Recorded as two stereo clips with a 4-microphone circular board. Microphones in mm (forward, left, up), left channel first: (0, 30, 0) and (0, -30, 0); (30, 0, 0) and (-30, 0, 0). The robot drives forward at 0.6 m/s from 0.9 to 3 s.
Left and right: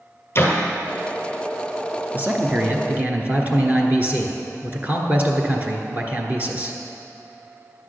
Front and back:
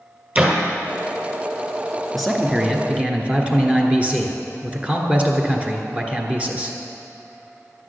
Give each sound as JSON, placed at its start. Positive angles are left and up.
{"t": 0.3, "sound": "a door slam", "azimuth_deg": 120, "distance_m": 1.7}
{"t": 2.1, "sound": "a man speaking", "azimuth_deg": -85, "distance_m": 1.2}